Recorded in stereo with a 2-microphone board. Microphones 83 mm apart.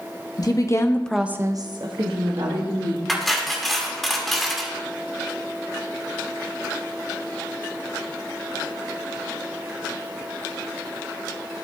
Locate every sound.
0.4 s a woman speaking: 50° left (ahead or behind), 1.2 m; by 3.0 s 85° right, 2 m
3.1 s cutlery clinking: centre (ahead or behind), 1.2 m